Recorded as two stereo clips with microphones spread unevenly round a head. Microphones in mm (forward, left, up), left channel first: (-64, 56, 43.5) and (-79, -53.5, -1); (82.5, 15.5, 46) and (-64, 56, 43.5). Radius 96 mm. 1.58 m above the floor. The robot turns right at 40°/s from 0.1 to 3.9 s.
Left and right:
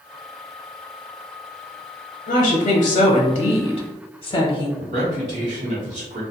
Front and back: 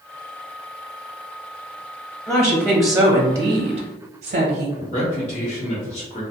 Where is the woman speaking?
70° left, 0.6 m; by 4.7 s 135° left, 0.6 m.